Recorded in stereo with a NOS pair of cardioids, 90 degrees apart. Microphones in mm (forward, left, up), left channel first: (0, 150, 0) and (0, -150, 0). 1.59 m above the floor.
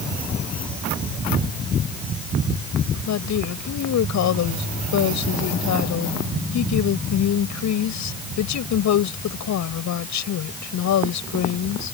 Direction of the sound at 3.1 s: 65° left.